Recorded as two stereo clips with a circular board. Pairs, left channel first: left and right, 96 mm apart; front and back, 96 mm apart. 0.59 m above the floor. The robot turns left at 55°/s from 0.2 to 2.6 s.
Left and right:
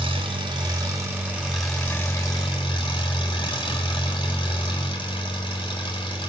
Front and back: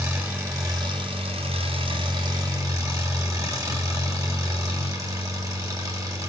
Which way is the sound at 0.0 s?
105° right.